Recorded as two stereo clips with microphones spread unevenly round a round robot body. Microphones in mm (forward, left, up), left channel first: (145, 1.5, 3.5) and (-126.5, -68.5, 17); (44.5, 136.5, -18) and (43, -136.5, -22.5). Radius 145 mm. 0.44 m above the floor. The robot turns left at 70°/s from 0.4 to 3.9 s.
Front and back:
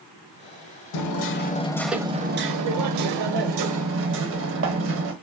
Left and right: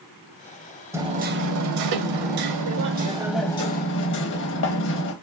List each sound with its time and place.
0.9 s hammering: 10° right, 0.7 m; by 5.1 s 145° left, 0.7 m